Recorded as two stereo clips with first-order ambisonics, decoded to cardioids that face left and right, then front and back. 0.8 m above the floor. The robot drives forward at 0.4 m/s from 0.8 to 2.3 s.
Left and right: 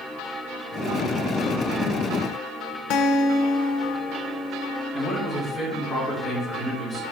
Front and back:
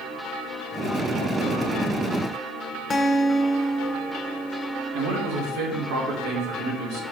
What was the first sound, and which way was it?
A guitar, 70° left.